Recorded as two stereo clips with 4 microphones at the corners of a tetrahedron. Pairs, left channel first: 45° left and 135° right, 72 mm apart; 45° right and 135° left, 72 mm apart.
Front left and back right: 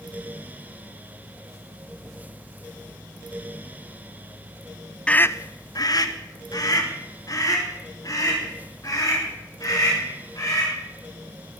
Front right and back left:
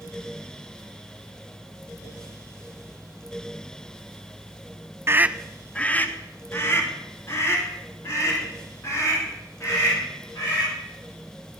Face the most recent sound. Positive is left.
turn(degrees=5)